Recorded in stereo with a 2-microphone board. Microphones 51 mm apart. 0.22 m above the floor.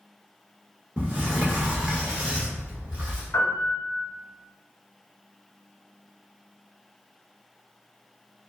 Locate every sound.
1.0 s a sliding door: 25° right (ahead or behind), 1.1 m
3.3 s a piano: 55° left (ahead or behind), 1.1 m